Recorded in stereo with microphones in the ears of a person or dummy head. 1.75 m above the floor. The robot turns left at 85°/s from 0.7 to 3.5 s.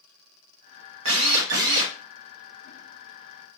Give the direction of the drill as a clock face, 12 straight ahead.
3 o'clock.